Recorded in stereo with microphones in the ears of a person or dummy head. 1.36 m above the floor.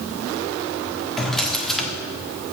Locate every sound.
1.2 s a drawer: centre (ahead or behind), 1.2 m